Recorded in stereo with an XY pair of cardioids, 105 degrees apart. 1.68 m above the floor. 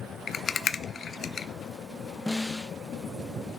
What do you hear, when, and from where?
0.3 s a rattle: 40° left, 0.5 m
2.3 s a snare drum: straight ahead, 0.5 m